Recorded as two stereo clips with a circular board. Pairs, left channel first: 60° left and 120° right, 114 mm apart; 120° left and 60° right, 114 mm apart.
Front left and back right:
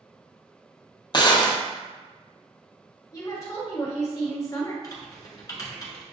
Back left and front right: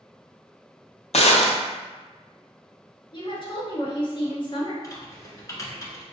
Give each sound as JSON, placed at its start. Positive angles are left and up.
{"t": 1.1, "sound": "a gunshot", "azimuth_deg": 110, "distance_m": 0.7}
{"t": 3.1, "sound": "a woman speaking", "azimuth_deg": 110, "distance_m": 1.5}
{"t": 4.8, "sound": "typing on a keyboard", "azimuth_deg": 90, "distance_m": 1.1}